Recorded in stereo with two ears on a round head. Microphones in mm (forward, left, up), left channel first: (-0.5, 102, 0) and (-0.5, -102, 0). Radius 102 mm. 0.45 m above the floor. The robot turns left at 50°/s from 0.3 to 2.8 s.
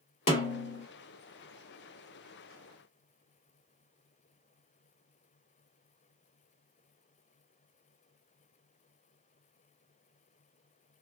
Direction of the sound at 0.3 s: 30° left (ahead or behind).